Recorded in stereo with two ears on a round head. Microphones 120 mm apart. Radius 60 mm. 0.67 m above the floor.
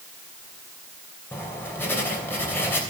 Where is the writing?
15° left (ahead or behind), 3 m.